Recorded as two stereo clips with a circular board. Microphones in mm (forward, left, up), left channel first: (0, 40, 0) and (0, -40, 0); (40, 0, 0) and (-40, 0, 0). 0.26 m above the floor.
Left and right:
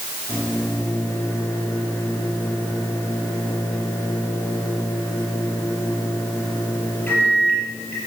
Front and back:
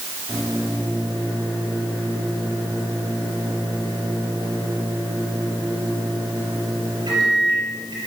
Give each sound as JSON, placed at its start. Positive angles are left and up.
{"t": 0.3, "sound": "a microwave", "azimuth_deg": 155, "distance_m": 4.5}